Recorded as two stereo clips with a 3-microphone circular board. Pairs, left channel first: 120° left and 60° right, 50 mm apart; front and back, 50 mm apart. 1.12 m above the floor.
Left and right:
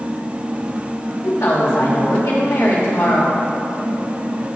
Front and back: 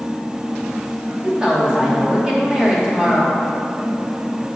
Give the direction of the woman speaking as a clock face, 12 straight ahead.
8 o'clock.